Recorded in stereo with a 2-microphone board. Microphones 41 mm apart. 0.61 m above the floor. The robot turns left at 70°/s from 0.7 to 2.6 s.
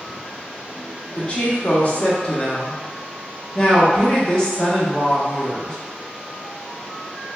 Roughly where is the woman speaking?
Behind left.